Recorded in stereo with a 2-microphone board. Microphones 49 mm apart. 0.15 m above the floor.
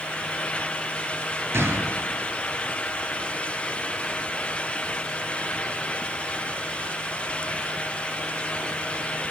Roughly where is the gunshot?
Right.